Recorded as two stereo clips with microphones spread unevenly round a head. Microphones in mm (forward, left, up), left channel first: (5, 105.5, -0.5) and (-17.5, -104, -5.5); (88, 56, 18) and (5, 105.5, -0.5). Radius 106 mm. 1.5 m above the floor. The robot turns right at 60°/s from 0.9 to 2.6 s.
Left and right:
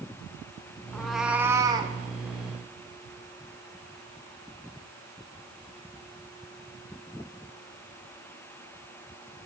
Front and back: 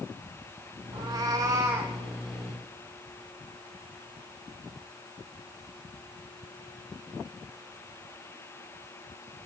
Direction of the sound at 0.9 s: 160° left.